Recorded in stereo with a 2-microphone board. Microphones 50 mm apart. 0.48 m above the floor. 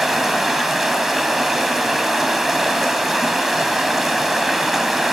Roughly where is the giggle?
No giggle in this recording.